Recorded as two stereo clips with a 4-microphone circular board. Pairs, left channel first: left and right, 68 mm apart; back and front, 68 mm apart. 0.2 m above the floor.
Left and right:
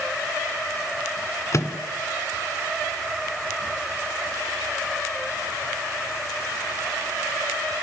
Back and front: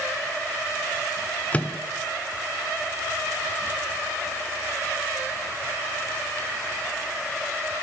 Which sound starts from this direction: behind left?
A microwave, at 1.5 s.